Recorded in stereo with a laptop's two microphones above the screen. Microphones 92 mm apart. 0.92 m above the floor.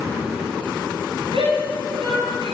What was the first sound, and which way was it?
A shout, 85° right.